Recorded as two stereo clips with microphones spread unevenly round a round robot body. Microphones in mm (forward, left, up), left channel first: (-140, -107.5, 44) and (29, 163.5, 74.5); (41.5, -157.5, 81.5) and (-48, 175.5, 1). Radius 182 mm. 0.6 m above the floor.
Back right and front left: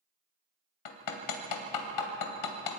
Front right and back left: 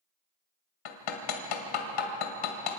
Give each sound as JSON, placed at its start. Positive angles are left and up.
{"t": 0.8, "sound": "hammering", "azimuth_deg": -100, "distance_m": 2.5}